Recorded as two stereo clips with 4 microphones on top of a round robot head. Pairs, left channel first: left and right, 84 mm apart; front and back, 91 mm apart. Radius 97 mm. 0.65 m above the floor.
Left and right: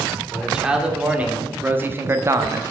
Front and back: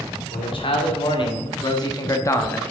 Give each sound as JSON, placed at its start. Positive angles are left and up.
{"t": 0.3, "sound": "a man speaking", "azimuth_deg": -10, "distance_m": 2.5}